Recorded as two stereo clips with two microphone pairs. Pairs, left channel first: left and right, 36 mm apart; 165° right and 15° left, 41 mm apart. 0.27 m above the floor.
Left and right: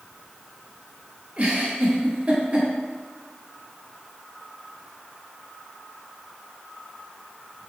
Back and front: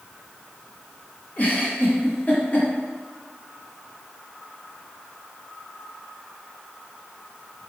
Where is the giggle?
125° right, 1.6 m.